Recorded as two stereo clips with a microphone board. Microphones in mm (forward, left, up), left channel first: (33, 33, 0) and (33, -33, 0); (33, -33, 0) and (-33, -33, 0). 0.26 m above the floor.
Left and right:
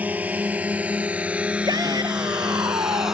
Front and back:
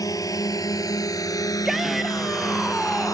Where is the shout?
95° right.